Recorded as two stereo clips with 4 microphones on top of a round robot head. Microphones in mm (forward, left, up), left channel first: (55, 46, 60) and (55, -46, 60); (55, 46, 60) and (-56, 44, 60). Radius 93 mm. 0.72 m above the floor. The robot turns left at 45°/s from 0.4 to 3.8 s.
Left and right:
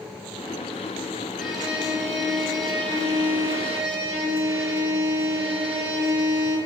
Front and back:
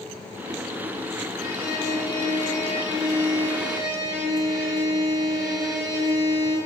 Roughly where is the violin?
Ahead.